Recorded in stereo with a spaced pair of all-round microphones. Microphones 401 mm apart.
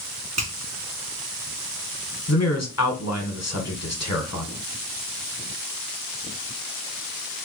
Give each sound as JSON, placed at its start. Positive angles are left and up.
{"t": 0.4, "sound": "a finger snap", "side_deg": -40, "distance_m": 1.7}
{"t": 2.3, "sound": "a man speaking", "side_deg": 40, "distance_m": 1.2}